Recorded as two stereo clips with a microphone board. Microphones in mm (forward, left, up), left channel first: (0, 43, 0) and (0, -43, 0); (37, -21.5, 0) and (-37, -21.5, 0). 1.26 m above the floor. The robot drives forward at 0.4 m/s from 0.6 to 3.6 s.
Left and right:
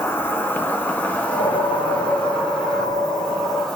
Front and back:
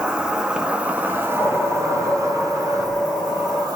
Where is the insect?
120° left, 0.8 m; by 3.8 s 165° left, 1.6 m.